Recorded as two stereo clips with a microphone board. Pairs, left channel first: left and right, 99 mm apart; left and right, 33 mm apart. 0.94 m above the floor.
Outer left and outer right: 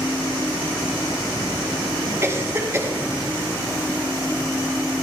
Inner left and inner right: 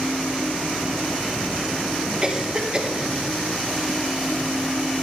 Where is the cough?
30° right (ahead or behind), 3 m.